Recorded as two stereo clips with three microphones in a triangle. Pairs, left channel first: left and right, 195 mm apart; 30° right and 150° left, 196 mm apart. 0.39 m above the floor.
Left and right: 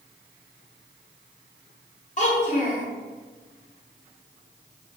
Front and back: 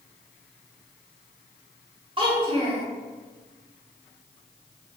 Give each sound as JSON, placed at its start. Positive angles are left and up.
{"t": 2.2, "sound": "a child speaking", "azimuth_deg": 105, "distance_m": 1.1}